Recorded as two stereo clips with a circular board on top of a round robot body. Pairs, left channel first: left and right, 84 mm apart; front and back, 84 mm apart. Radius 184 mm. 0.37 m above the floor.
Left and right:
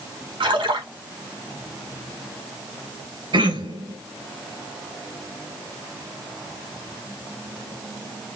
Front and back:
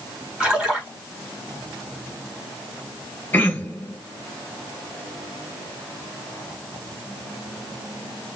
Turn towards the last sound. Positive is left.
turn(degrees=-70)